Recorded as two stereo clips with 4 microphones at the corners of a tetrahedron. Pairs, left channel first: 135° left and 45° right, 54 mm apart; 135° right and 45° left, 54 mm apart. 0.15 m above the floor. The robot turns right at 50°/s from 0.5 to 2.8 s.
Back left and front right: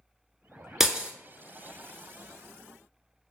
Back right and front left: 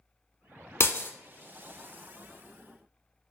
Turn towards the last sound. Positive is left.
turn(degrees=-25)